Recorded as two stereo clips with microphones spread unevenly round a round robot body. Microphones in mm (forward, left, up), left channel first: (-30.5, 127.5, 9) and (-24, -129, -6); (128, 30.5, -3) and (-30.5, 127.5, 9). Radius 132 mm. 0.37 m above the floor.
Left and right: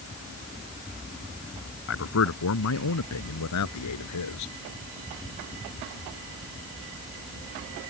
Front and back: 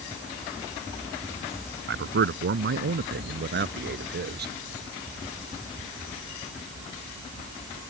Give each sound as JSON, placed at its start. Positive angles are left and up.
{"t": 1.9, "sound": "a man speaking", "azimuth_deg": 130}